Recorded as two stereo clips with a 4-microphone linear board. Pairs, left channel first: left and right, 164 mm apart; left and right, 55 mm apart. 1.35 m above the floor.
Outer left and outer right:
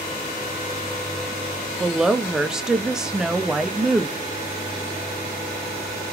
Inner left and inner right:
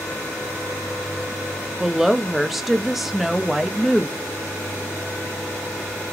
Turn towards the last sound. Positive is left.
turn(degrees=-5)  # may be behind; listen again after turning